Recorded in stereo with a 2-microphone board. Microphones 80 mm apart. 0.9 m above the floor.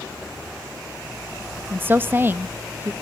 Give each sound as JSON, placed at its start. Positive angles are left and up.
{"t": 1.7, "sound": "a woman speaking", "side_deg": -25, "distance_m": 0.6}